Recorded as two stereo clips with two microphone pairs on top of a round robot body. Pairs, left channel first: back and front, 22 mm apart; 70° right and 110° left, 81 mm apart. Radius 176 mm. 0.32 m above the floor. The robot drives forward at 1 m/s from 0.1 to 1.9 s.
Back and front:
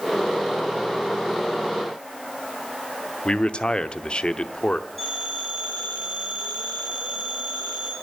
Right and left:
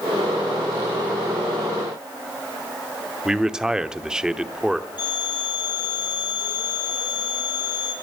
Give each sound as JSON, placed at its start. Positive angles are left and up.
{"t": 3.2, "sound": "a man speaking", "azimuth_deg": -165, "distance_m": 1.1}
{"t": 5.0, "sound": "a phone ringing", "azimuth_deg": -85, "distance_m": 8.0}